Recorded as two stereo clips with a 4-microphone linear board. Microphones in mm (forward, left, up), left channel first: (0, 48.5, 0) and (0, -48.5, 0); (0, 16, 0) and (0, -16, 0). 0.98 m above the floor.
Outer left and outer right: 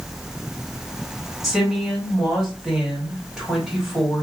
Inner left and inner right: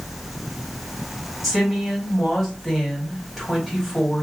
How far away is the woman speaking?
About 1.7 m.